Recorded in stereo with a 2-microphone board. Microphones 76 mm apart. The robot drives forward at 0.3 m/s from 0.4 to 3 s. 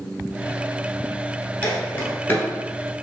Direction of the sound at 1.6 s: 20° left (ahead or behind).